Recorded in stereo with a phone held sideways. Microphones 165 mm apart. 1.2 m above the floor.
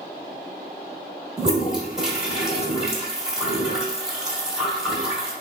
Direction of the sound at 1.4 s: 5° right (ahead or behind).